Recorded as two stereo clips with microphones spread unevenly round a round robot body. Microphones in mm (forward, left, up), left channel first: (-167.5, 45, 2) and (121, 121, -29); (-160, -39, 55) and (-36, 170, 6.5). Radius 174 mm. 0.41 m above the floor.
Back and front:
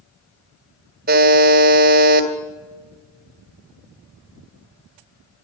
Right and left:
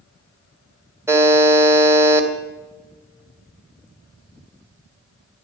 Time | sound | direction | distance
1.1 | a buzzer | 5° left | 1.6 m